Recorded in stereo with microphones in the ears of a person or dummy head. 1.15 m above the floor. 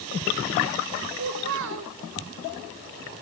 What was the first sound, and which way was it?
A child speaking, 65° right (ahead or behind).